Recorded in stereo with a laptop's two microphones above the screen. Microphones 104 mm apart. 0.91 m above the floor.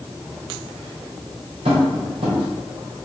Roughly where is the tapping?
Right.